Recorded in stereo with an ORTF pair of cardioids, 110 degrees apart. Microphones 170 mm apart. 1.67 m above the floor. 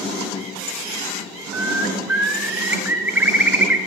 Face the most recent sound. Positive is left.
turn(degrees=-10)